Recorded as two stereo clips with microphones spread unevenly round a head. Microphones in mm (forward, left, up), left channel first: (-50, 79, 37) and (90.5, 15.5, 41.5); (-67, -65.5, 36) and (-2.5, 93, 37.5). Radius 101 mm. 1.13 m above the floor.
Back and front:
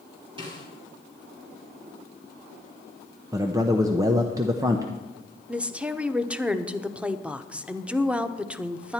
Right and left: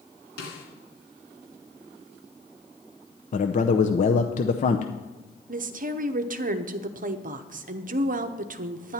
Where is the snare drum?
90° right, 2.5 m.